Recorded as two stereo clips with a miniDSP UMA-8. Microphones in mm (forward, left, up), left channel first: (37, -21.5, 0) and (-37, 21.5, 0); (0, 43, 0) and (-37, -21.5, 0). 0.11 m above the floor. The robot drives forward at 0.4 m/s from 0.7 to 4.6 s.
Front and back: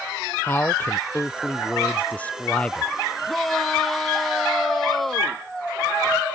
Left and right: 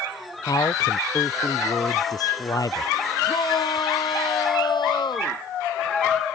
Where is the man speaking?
35° left; by 2.9 s 45° left.